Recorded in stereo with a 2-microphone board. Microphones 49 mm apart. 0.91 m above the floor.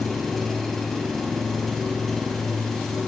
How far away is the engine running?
About 3.5 m.